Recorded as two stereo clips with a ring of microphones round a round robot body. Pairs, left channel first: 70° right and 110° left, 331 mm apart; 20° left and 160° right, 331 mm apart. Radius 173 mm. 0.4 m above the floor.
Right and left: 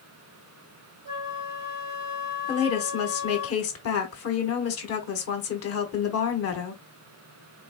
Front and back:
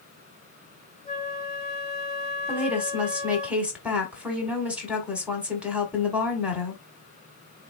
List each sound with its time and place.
1.1 s a flute: 85° left, 2.5 m
2.5 s a woman speaking: 75° right, 1.3 m